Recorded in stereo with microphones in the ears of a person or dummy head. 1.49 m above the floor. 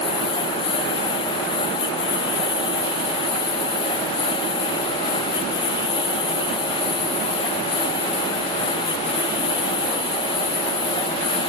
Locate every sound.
0.0 s a lawn mower: 20° left (ahead or behind)